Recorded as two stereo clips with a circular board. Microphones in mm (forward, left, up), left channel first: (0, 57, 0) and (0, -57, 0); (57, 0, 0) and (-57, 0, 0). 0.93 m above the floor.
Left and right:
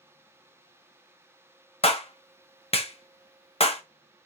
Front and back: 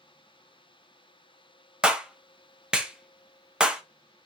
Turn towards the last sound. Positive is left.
turn(degrees=100)